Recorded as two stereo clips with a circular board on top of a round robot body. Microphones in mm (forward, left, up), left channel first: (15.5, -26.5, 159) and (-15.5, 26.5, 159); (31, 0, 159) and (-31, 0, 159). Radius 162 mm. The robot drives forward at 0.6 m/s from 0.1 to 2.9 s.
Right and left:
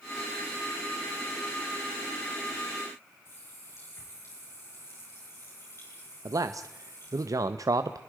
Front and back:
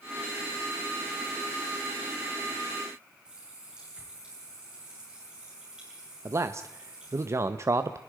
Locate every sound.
3.2 s a running tap: 105° right, 8.5 m
6.2 s a man speaking: 140° left, 0.9 m